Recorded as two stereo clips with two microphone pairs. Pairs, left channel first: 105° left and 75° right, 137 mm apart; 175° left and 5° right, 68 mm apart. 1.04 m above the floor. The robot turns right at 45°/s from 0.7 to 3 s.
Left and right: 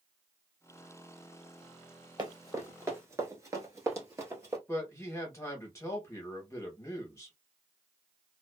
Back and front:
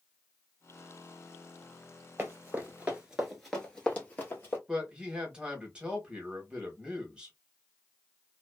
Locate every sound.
2.2 s running footsteps: 45° right, 1.2 m; by 4.6 s 140° right, 1.6 m
4.7 s a man speaking: 55° left, 0.9 m